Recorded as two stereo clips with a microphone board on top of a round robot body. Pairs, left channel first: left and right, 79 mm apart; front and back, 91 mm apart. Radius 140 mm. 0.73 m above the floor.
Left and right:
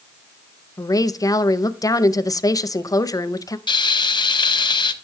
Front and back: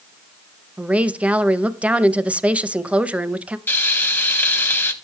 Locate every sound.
0.8 s a woman speaking: 110° left, 0.7 m
3.7 s frying: 70° left, 1.0 m